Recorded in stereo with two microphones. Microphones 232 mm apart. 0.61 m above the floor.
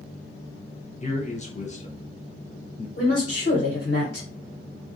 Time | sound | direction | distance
1.0 | a man speaking | 30° left (ahead or behind) | 0.8 m
3.0 | a woman speaking | 70° left (ahead or behind) | 1.6 m